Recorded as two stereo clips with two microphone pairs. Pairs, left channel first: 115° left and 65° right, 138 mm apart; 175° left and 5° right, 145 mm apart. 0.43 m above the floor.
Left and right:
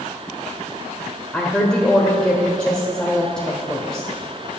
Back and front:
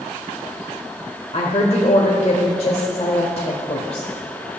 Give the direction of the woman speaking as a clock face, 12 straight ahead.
5 o'clock.